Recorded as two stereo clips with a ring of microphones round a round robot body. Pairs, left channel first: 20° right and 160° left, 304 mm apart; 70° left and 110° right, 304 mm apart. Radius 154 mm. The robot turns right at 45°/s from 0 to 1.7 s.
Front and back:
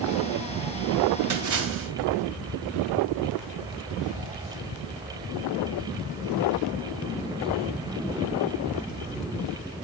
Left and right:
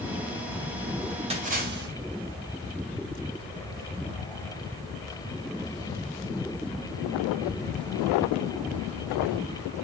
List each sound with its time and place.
1.3 s a splash: straight behind, 2 m; by 1.9 s 165° right, 2 m